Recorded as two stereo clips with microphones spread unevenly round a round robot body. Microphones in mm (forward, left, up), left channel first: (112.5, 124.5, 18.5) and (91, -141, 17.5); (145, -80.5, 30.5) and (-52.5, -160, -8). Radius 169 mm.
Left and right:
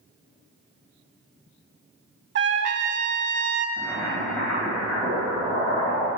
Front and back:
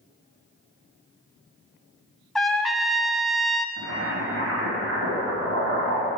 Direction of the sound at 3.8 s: 170° left.